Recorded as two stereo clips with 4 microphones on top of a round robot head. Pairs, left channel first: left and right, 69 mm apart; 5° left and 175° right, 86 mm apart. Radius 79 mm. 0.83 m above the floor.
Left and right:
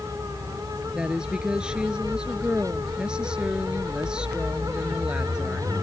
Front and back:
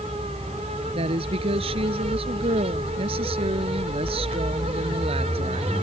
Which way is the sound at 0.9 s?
170° right.